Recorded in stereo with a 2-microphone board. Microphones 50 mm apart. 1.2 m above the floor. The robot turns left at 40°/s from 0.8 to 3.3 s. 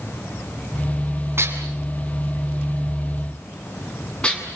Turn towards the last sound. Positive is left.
turn(degrees=20)  # may be behind; listen again after turning